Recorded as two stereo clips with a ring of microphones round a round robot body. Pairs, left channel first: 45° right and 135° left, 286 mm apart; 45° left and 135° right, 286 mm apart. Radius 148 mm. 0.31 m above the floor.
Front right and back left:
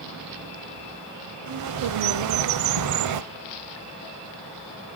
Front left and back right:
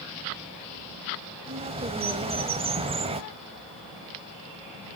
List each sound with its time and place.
1.5 s a bird: 155° left, 0.7 m